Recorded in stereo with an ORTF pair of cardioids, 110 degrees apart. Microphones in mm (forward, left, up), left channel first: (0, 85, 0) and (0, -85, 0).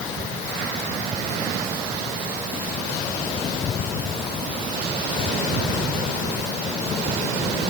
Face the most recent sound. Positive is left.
No sound to turn to.